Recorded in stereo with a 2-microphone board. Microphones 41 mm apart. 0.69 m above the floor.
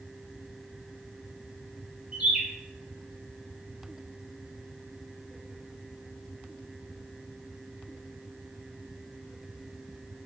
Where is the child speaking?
No child speaking in this recording.